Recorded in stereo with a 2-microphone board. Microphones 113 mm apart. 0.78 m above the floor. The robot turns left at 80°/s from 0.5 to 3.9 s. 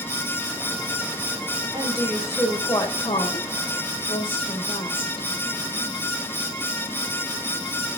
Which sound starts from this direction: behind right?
A woman speaking, at 1.7 s.